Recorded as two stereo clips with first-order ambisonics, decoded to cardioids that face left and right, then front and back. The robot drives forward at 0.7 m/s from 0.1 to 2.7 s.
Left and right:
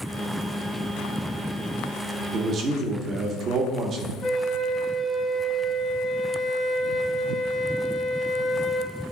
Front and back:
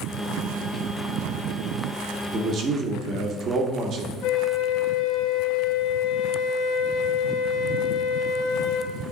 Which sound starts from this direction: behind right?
A man speaking, at 2.3 s.